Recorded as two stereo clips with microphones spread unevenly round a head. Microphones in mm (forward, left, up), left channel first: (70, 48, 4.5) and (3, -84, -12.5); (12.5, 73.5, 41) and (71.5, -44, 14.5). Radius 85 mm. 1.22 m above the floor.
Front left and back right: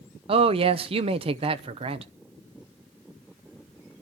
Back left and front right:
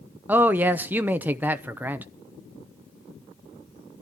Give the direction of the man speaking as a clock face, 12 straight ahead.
4 o'clock.